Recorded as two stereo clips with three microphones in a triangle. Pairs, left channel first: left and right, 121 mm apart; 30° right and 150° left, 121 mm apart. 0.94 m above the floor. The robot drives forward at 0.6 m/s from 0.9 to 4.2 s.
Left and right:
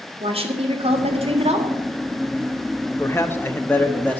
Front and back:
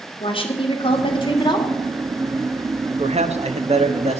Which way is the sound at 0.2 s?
65° right.